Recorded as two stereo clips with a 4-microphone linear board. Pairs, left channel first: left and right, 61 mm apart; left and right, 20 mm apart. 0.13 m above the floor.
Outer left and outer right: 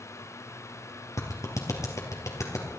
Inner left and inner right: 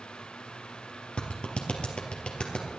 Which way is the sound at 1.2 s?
65° left (ahead or behind).